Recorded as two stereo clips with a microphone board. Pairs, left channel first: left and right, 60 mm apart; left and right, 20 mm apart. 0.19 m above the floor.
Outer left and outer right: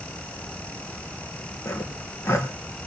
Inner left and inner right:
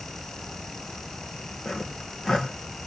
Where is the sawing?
40° left (ahead or behind), 4 m.